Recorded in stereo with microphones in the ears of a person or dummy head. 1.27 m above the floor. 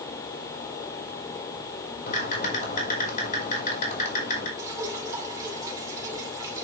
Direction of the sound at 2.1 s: 45° left (ahead or behind).